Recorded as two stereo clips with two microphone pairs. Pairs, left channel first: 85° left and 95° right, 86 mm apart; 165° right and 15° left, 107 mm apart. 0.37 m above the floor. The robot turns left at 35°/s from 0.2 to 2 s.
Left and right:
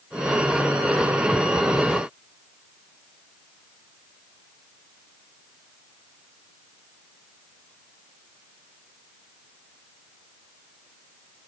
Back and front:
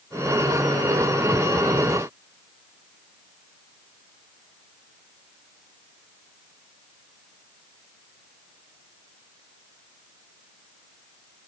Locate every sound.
Only background noise.